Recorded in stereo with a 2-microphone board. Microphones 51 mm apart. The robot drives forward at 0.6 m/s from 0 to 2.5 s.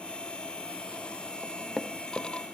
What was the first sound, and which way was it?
Knocking, 10° left (ahead or behind).